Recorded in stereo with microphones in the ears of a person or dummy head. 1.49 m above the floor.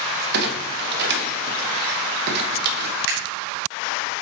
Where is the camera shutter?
60° right (ahead or behind), 3 m.